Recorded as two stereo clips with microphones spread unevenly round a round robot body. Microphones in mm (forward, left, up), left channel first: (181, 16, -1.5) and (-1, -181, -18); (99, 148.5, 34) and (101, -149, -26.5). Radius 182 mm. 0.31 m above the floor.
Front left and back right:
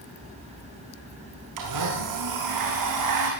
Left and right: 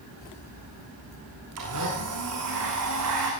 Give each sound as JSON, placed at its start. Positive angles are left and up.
{"t": 1.6, "sound": "a blender", "azimuth_deg": -140, "distance_m": 4.5}